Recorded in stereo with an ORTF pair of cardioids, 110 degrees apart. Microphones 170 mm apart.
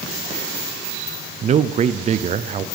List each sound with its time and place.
1.4 s a man speaking: 40° right, 0.7 m